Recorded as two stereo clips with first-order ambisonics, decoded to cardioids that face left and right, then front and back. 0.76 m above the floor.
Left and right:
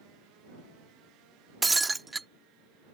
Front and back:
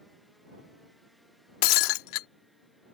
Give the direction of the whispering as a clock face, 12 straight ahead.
I don't hear whispering.